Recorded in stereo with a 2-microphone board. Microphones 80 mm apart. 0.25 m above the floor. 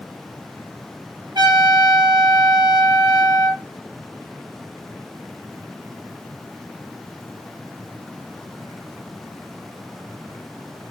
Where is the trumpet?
70° right (ahead or behind), 3.5 m.